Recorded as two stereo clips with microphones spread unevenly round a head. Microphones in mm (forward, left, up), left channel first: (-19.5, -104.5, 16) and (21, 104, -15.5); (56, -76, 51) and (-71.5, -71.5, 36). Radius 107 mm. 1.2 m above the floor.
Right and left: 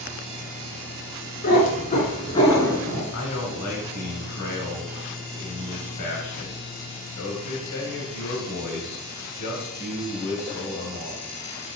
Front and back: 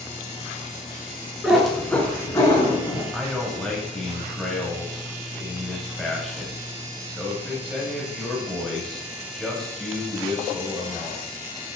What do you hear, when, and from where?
1.4 s a cat meowing: 90° right, 1.6 m; by 3.0 s 20° right, 1.7 m
3.1 s a man speaking: 90° right, 2.0 m